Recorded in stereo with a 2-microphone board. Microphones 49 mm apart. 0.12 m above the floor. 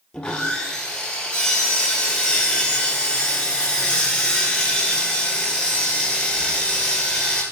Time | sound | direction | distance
0.1 | sawing | 20° left (ahead or behind) | 1.8 m